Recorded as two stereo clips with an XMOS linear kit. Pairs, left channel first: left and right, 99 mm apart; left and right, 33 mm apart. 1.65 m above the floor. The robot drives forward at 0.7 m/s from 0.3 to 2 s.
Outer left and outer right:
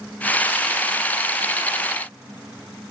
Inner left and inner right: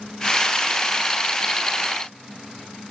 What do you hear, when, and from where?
Only background noise.